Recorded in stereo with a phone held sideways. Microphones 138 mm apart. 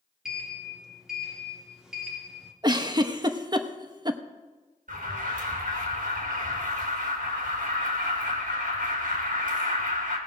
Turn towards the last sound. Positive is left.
turn(degrees=-75)  # may be behind; listen again after turning